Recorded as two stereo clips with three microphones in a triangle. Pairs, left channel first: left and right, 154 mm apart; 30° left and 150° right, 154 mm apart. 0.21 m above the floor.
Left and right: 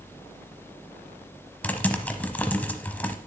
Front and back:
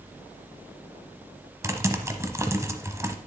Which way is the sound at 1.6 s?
160° left.